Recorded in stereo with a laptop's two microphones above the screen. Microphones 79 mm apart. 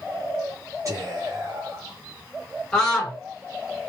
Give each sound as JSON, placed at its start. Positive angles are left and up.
{"t": 0.8, "sound": "whispering", "side_deg": -40, "distance_m": 1.2}
{"t": 2.7, "sound": "a scream", "side_deg": 10, "distance_m": 1.5}